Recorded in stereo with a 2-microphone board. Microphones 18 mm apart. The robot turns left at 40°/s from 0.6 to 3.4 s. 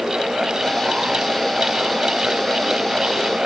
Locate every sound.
Only background noise.